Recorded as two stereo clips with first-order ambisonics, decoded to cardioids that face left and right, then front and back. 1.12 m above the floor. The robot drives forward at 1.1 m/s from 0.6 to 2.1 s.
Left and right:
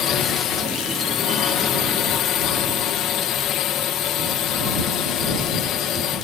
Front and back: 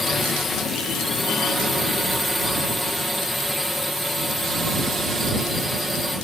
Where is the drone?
70° left; by 6.2 s 85° left.